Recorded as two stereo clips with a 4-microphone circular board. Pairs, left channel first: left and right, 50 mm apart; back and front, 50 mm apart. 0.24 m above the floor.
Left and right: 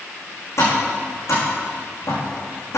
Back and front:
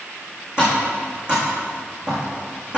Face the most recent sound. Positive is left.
turn(degrees=65)